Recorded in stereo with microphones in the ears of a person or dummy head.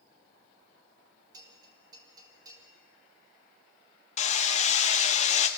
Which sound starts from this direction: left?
Hammering, at 4.2 s.